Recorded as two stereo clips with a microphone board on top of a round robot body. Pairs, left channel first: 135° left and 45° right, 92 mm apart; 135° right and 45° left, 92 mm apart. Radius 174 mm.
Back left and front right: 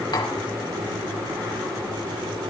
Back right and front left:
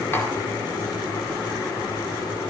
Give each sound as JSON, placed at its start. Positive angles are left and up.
{"t": 0.1, "sound": "tapping", "azimuth_deg": 160, "distance_m": 2.5}